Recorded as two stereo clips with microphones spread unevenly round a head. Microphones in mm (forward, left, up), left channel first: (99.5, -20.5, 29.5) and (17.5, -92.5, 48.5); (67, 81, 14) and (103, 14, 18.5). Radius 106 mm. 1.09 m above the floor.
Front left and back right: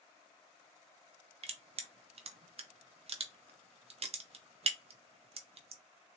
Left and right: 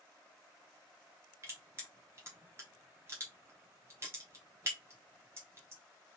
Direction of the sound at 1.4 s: 120° right.